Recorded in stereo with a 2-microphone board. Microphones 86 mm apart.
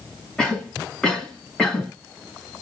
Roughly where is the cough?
Centre.